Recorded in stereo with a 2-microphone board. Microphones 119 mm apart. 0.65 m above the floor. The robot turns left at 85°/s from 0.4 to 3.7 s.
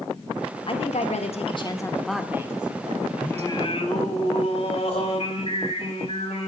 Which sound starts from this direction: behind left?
A woman speaking, at 0.7 s.